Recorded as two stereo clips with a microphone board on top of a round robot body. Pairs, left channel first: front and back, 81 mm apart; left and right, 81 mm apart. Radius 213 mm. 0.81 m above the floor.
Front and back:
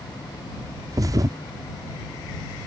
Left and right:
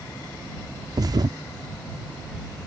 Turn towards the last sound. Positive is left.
turn(degrees=-130)